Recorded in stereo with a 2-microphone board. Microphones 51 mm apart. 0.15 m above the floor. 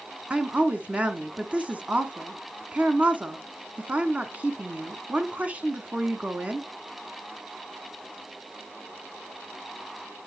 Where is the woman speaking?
25° right (ahead or behind), 1.1 m.